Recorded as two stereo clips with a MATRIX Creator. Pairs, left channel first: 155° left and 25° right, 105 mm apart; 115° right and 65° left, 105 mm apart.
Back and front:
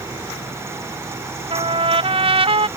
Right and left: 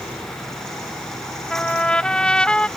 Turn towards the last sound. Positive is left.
turn(degrees=-35)